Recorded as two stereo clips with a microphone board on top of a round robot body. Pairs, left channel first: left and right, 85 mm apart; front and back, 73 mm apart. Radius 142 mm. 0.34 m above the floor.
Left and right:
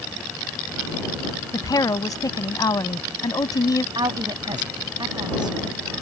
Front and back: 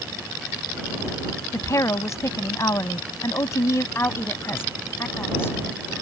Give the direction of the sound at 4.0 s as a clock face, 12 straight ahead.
2 o'clock.